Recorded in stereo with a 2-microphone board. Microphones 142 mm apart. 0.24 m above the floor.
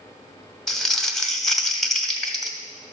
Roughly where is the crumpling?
Centre.